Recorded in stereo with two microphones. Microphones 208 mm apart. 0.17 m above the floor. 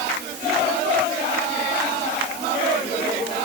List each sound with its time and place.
Only background noise.